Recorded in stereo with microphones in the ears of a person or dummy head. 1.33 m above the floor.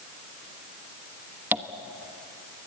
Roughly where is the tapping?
Centre.